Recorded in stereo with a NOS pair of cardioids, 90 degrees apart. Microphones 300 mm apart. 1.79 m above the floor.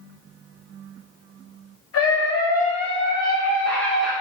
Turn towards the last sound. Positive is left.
turn(degrees=0)